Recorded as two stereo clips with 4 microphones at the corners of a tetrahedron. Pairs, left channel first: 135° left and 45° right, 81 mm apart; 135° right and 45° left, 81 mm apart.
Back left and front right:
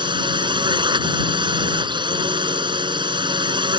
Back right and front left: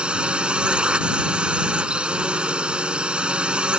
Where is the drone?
30° right.